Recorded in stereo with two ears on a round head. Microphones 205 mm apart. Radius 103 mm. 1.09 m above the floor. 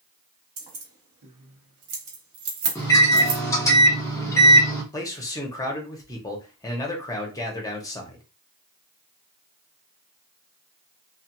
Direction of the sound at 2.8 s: 10° left (ahead or behind).